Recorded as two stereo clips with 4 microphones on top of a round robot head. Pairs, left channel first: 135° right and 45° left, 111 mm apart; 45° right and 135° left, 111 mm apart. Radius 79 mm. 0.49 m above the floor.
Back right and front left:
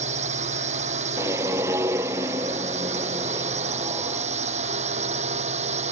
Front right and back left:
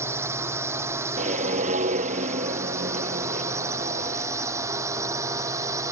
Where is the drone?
65° left; by 5.9 s 70° left.